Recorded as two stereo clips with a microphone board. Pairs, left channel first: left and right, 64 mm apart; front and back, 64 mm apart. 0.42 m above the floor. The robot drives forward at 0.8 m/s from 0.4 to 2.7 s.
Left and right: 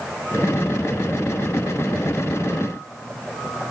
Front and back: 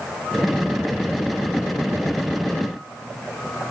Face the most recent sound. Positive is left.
No sound to turn to.